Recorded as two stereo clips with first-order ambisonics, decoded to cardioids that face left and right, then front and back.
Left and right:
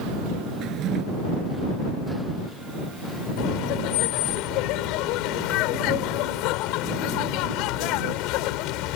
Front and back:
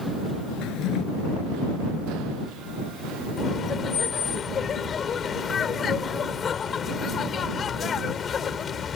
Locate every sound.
0.6 s a drawer: 35° right
3.4 s laughter: 65° left